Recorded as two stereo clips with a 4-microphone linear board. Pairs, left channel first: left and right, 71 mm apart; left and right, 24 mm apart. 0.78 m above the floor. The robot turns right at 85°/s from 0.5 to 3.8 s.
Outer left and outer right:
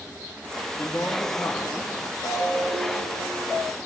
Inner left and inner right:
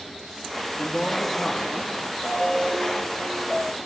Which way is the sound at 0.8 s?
25° left.